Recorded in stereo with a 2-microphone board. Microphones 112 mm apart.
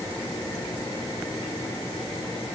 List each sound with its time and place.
Only background noise.